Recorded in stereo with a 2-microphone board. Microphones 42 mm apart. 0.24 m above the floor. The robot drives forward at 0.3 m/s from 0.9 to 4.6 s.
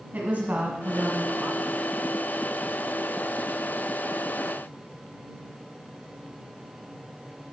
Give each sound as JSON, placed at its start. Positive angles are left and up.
{"t": 0.1, "sound": "a woman speaking", "side_deg": -40, "distance_m": 1.4}